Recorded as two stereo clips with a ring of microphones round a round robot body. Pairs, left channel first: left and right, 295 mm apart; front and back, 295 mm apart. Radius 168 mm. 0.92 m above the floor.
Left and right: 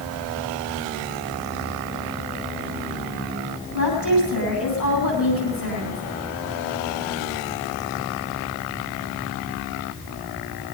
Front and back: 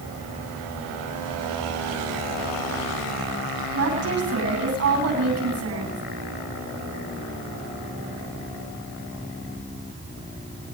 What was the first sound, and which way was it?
A woman speaking, 145° left.